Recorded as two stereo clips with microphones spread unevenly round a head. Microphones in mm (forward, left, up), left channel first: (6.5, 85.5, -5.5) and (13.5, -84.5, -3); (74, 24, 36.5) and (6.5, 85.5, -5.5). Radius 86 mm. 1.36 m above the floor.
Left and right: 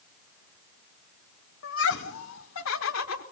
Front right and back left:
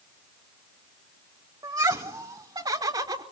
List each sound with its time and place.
1.6 s laughter: 90° left, 1.9 m; by 3.2 s 100° left, 3 m